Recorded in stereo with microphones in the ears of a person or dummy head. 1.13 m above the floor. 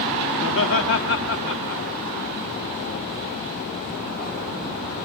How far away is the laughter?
About 3 m.